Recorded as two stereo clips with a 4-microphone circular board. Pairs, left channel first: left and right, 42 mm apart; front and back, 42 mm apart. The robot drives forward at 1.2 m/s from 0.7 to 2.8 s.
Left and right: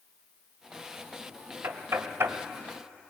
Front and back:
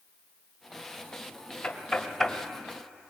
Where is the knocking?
70° right, 1.8 m; by 2.4 s 100° right, 1.7 m.